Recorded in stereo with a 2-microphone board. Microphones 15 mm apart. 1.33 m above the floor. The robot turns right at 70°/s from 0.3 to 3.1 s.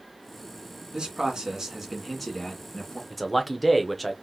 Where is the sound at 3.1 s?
5° left (ahead or behind), 0.8 m.